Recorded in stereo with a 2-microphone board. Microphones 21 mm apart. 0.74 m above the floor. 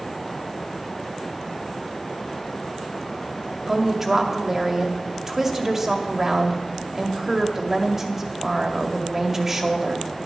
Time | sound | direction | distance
3.7 | a woman speaking | 20° right (ahead or behind) | 2.0 m